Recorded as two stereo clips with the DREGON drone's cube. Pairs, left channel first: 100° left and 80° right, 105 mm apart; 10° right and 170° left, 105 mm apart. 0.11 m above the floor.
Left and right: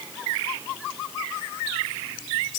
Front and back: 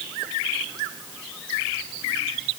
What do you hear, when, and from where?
Only background noise.